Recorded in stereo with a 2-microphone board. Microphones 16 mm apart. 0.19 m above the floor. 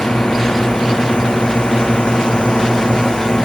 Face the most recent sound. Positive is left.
turn(degrees=55)  # may be behind; listen again after turning